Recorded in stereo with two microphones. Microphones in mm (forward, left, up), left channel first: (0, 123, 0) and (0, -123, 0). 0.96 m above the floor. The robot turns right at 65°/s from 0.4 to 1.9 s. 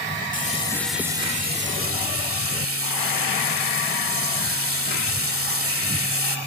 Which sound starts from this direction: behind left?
Frying, at 0.3 s.